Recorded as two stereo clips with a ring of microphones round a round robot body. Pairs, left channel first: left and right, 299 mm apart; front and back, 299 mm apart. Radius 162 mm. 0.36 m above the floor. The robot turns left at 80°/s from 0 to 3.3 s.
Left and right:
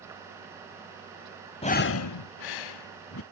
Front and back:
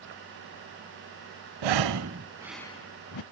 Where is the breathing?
165° left, 0.5 m; by 3.2 s 35° left, 0.5 m.